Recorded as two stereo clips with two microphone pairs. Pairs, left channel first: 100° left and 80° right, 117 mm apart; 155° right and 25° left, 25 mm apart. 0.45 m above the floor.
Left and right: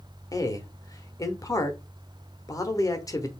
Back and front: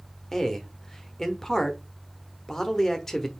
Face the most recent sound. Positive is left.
turn(degrees=145)